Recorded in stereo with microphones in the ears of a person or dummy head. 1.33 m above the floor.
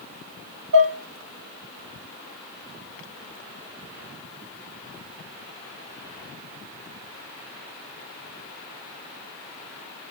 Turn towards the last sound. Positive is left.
turn(degrees=-75)  # may be behind; listen again after turning